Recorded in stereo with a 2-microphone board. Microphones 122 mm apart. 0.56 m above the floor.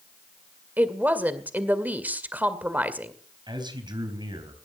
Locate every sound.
0.8 s a woman speaking: 15° right (ahead or behind), 2 m
3.5 s a man speaking: 35° right (ahead or behind), 3.5 m